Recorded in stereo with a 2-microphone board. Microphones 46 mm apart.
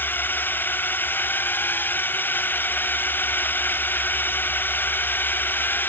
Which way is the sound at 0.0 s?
45° left (ahead or behind).